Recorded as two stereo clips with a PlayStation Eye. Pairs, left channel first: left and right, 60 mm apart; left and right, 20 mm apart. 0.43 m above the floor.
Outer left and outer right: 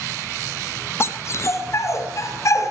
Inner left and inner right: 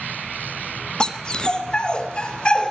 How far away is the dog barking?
About 1.6 m.